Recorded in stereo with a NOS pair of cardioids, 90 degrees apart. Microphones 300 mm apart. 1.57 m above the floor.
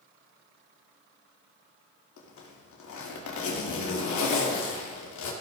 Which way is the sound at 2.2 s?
70° left.